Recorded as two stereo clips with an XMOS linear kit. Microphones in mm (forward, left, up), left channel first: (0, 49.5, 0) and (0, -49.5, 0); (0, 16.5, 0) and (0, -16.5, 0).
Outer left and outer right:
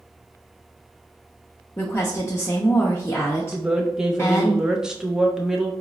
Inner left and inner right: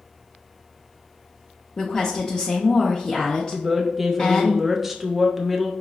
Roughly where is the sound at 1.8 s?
Left.